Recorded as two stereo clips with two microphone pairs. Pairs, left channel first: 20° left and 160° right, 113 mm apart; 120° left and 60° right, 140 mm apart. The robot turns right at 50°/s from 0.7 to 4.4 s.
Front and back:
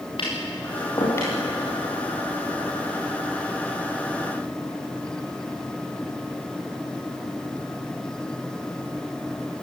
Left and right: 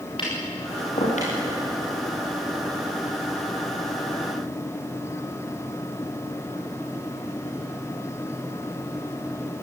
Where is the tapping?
65° left, 9.5 m; by 1.3 s 95° left, 9.5 m.